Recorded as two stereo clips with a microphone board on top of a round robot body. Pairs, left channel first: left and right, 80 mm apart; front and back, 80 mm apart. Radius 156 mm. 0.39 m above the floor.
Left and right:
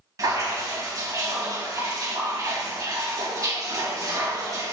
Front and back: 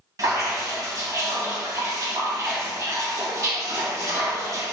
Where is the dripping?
135° right, 2.5 m.